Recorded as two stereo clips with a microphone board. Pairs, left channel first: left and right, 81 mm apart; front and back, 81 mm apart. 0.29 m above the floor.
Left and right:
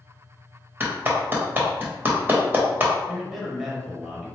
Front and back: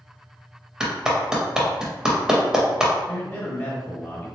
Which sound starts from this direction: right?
A clap, at 0.8 s.